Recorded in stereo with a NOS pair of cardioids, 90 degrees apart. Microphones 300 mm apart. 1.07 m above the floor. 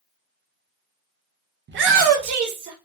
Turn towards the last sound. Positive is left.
turn(degrees=-75)